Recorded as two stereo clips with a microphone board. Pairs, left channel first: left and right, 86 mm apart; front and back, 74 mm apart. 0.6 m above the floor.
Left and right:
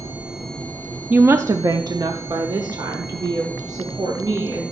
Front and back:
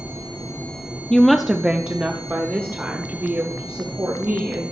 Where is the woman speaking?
60° right, 0.6 m; by 4.6 s 125° right, 3 m.